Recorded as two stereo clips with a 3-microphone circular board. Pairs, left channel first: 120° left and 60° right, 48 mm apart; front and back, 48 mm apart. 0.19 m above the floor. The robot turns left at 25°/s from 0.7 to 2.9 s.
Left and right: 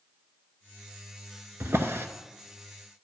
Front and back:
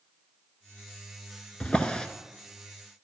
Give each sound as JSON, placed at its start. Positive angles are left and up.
{"t": 1.6, "sound": "a drawer", "azimuth_deg": -60, "distance_m": 0.7}